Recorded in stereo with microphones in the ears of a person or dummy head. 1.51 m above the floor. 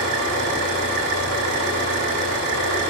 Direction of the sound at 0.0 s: 65° right (ahead or behind).